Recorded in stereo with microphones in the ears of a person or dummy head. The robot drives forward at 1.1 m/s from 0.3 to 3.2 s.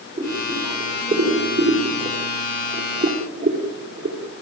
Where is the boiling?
30° right (ahead or behind), 8 m; by 4.2 s 50° right (ahead or behind), 5.5 m.